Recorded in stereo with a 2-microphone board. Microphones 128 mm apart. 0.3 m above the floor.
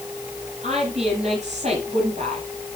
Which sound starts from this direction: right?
A woman speaking, at 0.6 s.